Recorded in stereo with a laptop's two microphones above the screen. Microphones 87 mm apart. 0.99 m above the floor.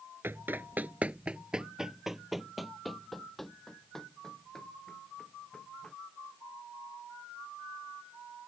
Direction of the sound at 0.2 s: 25° right (ahead or behind).